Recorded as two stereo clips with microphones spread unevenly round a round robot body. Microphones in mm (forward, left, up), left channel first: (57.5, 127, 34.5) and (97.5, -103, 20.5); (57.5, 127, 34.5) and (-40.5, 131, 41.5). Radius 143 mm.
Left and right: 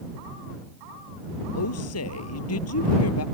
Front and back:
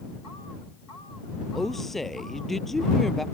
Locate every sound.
1.6 s a woman speaking: 85° left